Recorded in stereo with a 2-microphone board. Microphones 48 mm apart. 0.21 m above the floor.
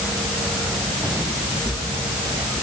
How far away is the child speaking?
I don't hear a child speaking.